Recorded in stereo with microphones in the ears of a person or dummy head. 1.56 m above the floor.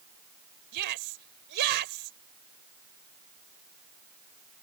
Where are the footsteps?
No footsteps in this recording.